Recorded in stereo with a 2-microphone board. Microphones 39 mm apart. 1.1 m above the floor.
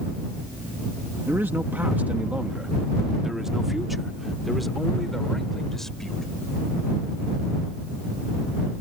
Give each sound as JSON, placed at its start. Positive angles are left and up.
{"t": 1.3, "sound": "a man speaking", "side_deg": -70}